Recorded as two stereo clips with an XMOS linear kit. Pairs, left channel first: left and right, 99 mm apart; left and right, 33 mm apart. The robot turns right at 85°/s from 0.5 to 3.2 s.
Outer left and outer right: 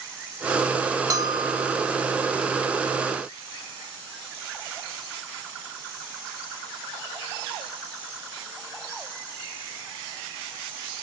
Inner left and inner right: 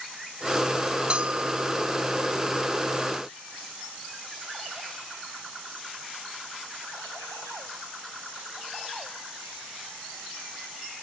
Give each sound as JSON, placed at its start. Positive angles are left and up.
{"t": 1.1, "sound": "a bell", "azimuth_deg": -110}